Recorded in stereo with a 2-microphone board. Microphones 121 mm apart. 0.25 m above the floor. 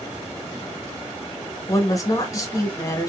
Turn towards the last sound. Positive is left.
turn(degrees=30)  # may be behind; listen again after turning